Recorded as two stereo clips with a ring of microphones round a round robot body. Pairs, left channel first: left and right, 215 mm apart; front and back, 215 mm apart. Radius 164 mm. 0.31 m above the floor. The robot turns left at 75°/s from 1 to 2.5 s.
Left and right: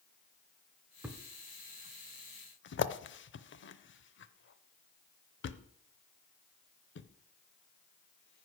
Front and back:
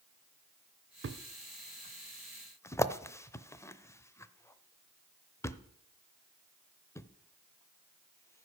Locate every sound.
1.0 s a thud: 175° right, 0.7 m; by 8.5 s 75° left, 0.7 m